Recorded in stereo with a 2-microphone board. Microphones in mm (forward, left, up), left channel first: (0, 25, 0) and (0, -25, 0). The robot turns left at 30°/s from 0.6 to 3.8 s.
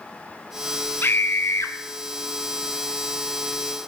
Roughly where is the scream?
Left.